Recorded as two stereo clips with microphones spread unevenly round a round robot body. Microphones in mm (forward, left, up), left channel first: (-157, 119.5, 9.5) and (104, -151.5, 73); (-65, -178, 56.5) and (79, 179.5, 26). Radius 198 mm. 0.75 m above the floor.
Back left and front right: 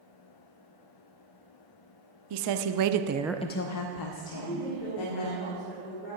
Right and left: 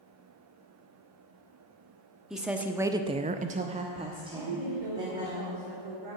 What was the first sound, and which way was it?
A woman speaking, 20° right.